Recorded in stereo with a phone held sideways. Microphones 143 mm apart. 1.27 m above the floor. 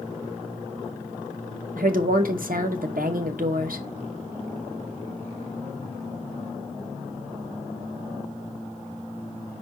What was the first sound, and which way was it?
A woman speaking, 80° right.